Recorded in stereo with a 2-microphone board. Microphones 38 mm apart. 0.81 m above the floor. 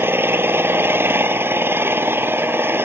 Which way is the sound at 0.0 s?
85° right.